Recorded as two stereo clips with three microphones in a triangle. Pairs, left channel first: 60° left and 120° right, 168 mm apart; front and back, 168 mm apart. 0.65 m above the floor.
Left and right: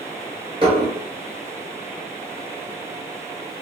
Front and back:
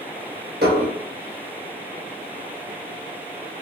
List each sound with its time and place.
0.6 s dishes clattering: 175° right, 1.3 m